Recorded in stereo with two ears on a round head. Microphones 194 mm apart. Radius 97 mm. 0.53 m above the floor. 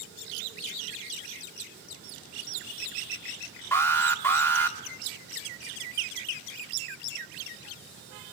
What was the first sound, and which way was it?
An alarm, 10° left (ahead or behind).